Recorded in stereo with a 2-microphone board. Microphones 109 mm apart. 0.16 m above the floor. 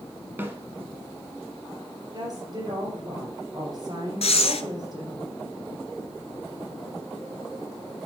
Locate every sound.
0.4 s a snare drum: 20° right (ahead or behind), 1.3 m
2.1 s a woman speaking: 45° right (ahead or behind), 3 m
4.2 s breathing: 65° left (ahead or behind), 0.7 m